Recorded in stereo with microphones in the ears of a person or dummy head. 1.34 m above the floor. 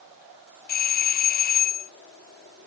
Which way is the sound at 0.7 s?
40° left (ahead or behind).